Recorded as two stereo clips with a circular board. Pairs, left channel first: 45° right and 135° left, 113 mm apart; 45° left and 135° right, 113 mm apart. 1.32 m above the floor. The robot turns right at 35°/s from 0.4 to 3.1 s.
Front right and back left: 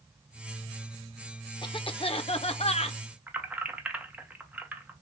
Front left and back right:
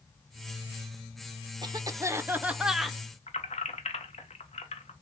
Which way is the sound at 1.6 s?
90° right.